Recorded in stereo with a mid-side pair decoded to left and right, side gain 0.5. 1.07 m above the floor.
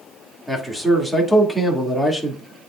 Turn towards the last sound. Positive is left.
turn(degrees=0)